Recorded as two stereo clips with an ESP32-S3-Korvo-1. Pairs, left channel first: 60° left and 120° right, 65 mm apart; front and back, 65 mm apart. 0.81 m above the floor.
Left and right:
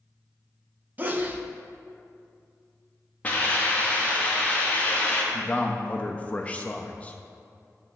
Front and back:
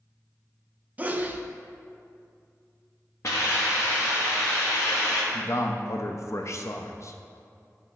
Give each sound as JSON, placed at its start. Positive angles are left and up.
{"t": 1.0, "sound": "a sneeze", "azimuth_deg": -145, "distance_m": 0.6}
{"t": 3.2, "sound": "a hiss", "azimuth_deg": 0, "distance_m": 1.1}
{"t": 5.3, "sound": "a man speaking", "azimuth_deg": -5, "distance_m": 0.6}